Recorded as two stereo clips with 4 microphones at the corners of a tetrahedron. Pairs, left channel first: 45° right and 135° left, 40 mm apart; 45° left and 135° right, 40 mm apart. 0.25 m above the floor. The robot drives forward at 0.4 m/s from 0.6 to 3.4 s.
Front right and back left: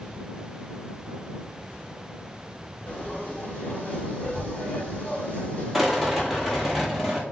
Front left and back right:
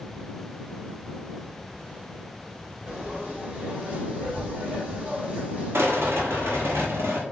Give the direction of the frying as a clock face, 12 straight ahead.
3 o'clock.